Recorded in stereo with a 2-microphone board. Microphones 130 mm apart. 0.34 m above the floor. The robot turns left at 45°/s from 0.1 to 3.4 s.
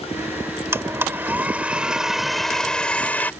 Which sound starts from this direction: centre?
A blender, at 0.7 s.